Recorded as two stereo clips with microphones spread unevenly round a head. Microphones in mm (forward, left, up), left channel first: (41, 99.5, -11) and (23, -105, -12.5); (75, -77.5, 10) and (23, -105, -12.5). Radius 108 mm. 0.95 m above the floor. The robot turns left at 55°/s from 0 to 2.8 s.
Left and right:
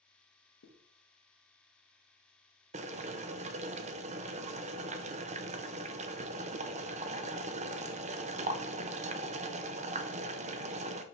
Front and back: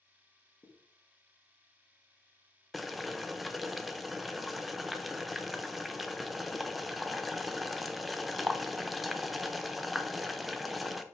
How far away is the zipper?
About 1.3 m.